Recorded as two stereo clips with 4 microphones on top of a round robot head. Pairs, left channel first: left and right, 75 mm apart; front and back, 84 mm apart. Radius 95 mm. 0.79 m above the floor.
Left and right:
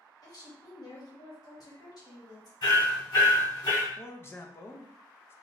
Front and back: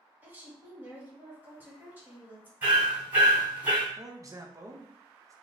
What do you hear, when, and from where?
0.2 s a woman speaking: 115° left, 1.4 m
2.6 s hammering: 110° left, 1.4 m
4.0 s a man speaking: 140° left, 0.6 m